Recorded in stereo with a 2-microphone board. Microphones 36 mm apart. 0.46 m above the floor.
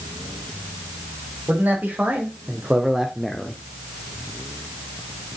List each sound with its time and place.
1.5 s a man speaking: 55° right (ahead or behind), 2.5 m; by 3.6 s 30° left (ahead or behind), 1.0 m